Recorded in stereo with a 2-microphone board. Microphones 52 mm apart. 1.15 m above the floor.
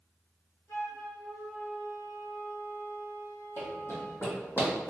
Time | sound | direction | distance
0.7 | a flute | 65° left (ahead or behind) | 1.8 m
3.6 | running footsteps | 50° left (ahead or behind) | 1.8 m